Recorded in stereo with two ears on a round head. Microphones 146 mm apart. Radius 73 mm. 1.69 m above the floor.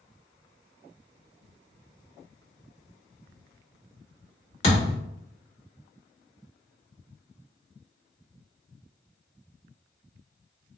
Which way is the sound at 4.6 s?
40° left (ahead or behind).